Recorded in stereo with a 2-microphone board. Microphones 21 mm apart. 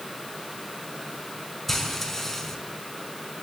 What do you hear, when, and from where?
1.7 s frying: 10° left (ahead or behind), 4 m